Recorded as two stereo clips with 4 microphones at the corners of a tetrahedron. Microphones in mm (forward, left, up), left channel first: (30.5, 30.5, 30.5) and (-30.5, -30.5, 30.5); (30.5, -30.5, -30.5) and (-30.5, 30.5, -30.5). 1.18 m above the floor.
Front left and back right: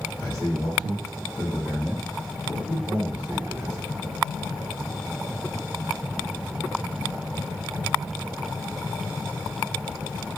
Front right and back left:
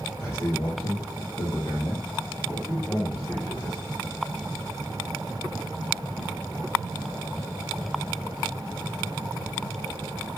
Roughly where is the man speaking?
Ahead.